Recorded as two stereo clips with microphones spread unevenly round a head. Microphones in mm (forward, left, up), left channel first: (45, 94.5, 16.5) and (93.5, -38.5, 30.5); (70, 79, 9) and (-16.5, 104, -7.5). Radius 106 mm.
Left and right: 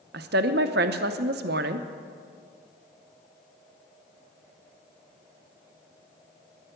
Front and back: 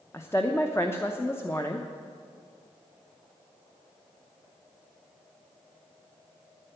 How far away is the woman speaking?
About 0.7 m.